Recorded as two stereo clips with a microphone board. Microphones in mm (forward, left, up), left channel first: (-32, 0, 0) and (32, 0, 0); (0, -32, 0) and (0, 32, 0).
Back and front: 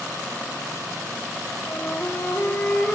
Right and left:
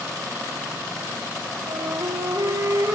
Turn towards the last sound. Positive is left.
turn(degrees=115)